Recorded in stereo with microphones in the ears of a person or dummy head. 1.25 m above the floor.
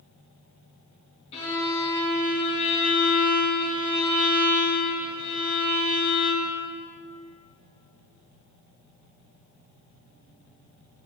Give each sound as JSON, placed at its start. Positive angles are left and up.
{"t": 1.3, "sound": "a violin", "side_deg": 35, "distance_m": 1.9}